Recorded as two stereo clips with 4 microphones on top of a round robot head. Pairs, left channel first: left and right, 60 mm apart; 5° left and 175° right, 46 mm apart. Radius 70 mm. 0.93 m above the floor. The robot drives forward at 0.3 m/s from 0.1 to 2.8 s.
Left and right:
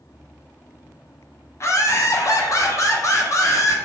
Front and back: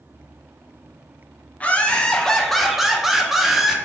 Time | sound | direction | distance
1.6 | laughter | 60° left | 0.7 m